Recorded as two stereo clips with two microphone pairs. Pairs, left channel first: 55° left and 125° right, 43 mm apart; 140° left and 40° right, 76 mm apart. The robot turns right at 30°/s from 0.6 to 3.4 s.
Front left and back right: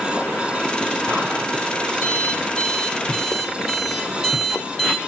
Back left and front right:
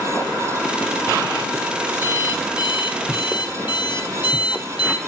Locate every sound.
2.0 s an alarm clock: 100° left, 3 m; by 5.0 s 145° left, 3 m